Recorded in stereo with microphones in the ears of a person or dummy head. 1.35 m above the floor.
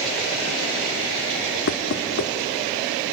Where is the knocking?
60° left (ahead or behind), 2.0 m.